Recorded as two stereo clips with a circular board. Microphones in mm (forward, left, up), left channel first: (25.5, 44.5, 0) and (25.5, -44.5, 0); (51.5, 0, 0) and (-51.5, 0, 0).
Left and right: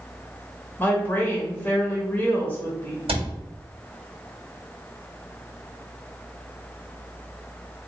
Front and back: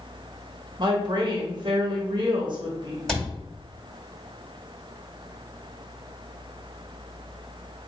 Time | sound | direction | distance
0.8 | a woman speaking | 155° left | 1.0 m
3.1 | a cupboard door | 85° right | 1.1 m